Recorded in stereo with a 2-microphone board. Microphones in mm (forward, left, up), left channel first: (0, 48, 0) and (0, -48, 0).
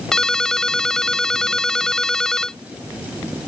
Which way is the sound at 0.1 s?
5° left (ahead or behind).